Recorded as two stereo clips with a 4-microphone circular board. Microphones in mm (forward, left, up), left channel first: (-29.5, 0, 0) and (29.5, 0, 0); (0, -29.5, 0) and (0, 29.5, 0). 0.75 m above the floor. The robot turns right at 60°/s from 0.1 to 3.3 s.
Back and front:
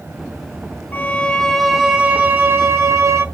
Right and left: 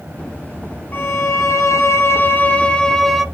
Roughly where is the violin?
Behind right.